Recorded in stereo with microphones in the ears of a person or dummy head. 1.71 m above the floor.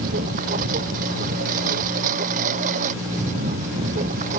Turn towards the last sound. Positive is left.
turn(degrees=-40)  # may be behind; listen again after turning